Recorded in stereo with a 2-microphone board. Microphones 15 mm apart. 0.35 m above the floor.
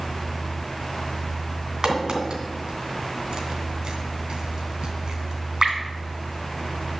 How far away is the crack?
About 2.5 m.